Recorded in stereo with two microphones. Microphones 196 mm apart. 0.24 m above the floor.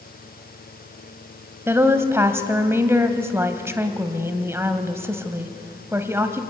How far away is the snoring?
I don't hear snoring.